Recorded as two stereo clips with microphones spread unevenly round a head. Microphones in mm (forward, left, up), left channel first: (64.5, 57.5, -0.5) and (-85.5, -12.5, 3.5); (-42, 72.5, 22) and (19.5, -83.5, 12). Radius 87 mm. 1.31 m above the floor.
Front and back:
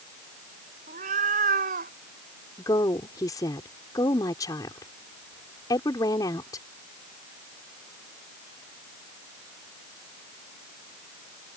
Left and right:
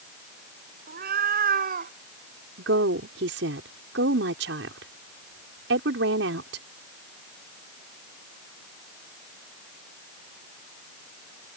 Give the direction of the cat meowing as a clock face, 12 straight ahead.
3 o'clock.